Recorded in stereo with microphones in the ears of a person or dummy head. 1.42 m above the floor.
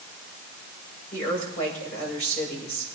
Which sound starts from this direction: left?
A woman speaking, at 1.1 s.